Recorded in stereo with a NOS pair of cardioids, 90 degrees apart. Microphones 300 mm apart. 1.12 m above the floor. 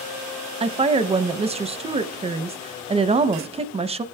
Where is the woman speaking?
20° right, 0.7 m.